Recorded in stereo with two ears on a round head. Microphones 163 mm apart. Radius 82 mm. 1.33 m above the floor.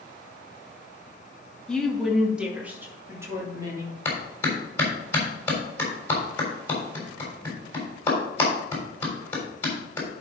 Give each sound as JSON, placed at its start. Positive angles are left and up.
{"t": 1.7, "sound": "a woman speaking", "side_deg": 5, "distance_m": 1.9}
{"t": 4.0, "sound": "a clap", "side_deg": 15, "distance_m": 3.5}